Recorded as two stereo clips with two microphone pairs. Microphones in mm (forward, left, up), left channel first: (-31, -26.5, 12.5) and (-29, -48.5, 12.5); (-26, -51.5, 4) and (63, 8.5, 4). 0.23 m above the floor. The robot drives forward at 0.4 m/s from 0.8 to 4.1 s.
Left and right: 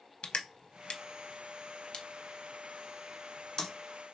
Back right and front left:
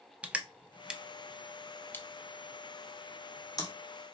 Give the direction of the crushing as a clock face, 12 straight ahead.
9 o'clock.